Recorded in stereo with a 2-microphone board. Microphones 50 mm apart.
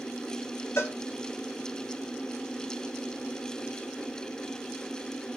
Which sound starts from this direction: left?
A cowbell, at 0.8 s.